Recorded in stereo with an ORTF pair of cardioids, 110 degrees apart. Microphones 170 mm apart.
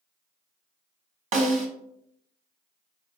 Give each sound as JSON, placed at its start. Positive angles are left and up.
{"t": 1.3, "sound": "a snare drum", "azimuth_deg": -50, "distance_m": 1.4}